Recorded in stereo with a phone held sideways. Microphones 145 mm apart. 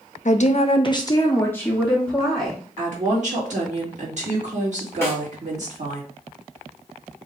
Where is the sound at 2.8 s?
55° right (ahead or behind), 2 m.